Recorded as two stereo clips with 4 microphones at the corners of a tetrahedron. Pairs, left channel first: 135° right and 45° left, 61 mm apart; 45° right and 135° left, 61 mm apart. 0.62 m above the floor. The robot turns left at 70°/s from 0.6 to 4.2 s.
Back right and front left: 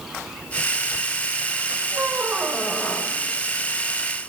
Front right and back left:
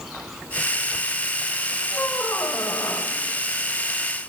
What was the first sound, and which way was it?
A squeak, 10° left.